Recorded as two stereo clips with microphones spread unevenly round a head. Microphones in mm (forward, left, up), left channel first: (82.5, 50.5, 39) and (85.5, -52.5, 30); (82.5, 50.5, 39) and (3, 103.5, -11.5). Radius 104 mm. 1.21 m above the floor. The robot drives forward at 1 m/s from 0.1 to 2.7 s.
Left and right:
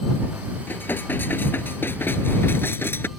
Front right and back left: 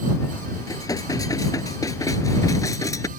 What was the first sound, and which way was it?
Dishes clattering, 20° left.